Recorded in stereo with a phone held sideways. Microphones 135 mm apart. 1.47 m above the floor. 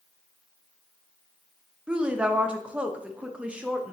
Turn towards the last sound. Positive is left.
turn(degrees=-5)  # may be behind; listen again after turning